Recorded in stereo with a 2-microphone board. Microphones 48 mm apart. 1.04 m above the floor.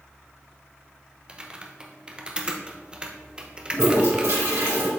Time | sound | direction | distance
1.3 | typing on a keyboard | 20° right (ahead or behind) | 0.8 m
3.7 | a toilet flushing | 90° right | 3.5 m